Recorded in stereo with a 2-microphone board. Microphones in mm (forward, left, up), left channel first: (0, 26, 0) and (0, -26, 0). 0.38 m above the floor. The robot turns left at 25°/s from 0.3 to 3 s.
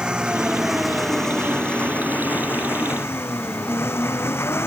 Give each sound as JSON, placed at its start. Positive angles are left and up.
{"t": 0.0, "sound": "an engine running", "azimuth_deg": -165}